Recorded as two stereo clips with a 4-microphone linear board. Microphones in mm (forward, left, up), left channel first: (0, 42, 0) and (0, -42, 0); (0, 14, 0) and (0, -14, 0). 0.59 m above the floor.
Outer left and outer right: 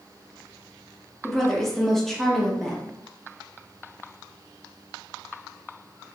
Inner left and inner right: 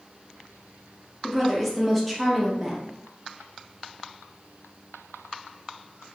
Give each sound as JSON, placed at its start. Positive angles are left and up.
{"t": 1.2, "sound": "a woman speaking", "side_deg": 5, "distance_m": 0.6}